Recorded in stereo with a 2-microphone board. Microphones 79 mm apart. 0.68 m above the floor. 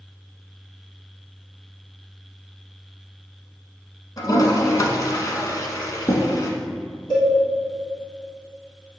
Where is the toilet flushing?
50° left (ahead or behind), 1.1 m.